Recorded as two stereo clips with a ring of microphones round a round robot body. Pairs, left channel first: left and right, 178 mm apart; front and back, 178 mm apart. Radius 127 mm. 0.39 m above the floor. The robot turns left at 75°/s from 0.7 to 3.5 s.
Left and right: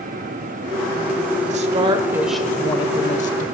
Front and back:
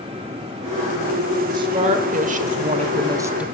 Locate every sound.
1.4 s a woman speaking: 115° right, 1.0 m; by 3.4 s 100° left, 1.0 m